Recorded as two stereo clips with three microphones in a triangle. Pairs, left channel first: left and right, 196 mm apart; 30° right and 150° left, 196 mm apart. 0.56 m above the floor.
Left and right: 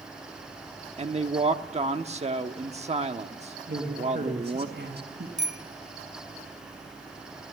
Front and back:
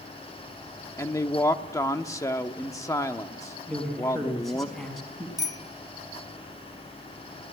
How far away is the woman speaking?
About 1.1 m.